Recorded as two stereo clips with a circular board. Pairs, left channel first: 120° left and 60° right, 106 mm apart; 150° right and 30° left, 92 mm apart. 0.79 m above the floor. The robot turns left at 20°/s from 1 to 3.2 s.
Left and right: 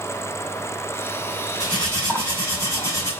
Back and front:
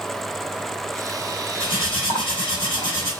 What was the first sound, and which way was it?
Cutlery clinking, 150° right.